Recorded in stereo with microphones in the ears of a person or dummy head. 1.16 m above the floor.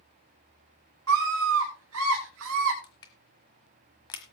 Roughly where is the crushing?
Left.